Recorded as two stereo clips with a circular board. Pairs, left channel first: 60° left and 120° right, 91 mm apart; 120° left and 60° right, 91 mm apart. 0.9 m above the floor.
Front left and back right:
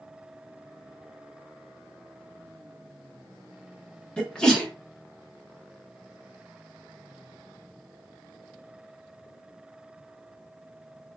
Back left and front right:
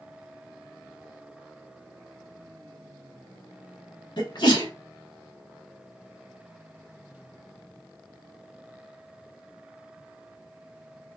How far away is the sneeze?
About 0.9 m.